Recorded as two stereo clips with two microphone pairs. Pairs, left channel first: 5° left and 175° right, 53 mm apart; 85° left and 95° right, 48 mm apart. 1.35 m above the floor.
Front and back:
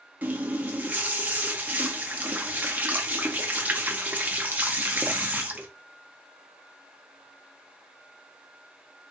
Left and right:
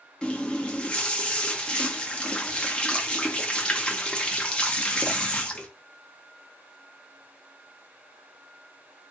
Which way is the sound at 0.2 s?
140° left.